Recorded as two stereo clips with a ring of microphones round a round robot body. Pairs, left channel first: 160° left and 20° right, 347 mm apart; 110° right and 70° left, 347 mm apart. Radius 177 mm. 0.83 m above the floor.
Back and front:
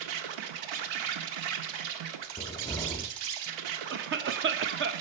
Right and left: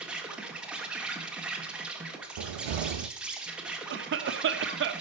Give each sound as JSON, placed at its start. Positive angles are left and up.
{"t": 0.0, "sound": "an insect", "azimuth_deg": -20, "distance_m": 1.3}
{"t": 2.4, "sound": "a cupboard door", "azimuth_deg": 75, "distance_m": 0.5}
{"t": 3.9, "sound": "a cough", "azimuth_deg": 25, "distance_m": 0.8}